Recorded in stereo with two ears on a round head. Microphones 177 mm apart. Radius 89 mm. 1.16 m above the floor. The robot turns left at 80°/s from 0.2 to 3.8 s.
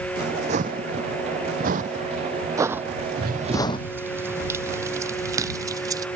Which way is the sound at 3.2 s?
55° right (ahead or behind).